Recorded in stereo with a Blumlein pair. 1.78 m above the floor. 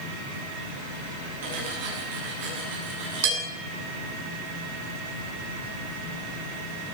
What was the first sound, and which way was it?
Cutlery clinking, 55° right.